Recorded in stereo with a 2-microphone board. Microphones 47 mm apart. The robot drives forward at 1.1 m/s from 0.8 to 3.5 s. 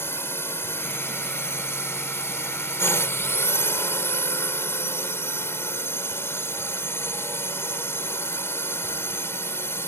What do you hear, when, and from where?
0.0 s a drone: 60° left (ahead or behind); by 9.9 s 65° left (ahead or behind)